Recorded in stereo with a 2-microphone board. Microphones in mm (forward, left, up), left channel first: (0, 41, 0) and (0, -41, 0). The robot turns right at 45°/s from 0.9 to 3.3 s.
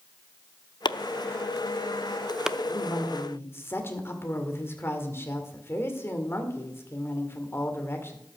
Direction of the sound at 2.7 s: 55° left (ahead or behind).